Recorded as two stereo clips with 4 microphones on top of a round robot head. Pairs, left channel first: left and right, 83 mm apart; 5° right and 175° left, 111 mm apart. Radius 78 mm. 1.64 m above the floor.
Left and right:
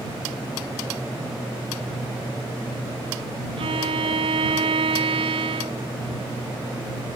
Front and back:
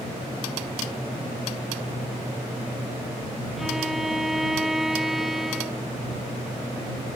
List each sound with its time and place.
3.6 s a violin: 95° right